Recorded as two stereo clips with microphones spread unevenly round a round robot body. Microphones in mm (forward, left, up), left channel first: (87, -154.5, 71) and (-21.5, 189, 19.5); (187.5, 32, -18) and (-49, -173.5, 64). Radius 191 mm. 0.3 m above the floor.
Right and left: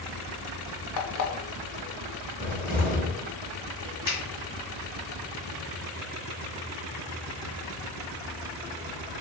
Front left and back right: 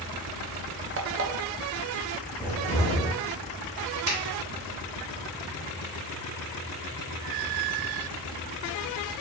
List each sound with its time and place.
1.0 s an alarm clock: 85° right, 0.6 m
2.4 s a cupboard door: 90° left, 0.9 m
4.1 s a finger snap: 125° right, 1.8 m